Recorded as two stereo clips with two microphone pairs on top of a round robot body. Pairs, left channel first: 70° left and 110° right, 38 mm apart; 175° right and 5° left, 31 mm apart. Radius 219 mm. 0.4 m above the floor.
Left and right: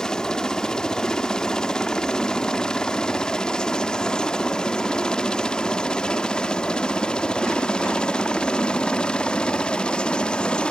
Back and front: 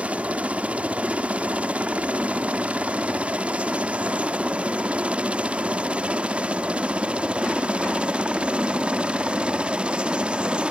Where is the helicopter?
5° left; by 10.7 s 25° left.